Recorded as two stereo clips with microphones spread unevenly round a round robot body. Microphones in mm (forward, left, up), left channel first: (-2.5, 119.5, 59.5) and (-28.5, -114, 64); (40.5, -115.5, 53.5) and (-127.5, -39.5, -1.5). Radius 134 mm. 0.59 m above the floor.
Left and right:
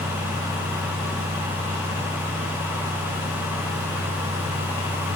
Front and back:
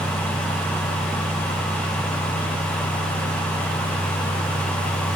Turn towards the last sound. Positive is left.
No sound to turn to.